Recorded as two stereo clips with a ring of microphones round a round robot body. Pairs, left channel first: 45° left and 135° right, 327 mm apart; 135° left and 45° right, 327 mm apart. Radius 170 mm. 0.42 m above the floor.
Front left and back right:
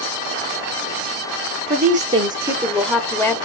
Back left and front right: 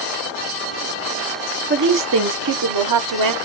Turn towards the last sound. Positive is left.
turn(degrees=-35)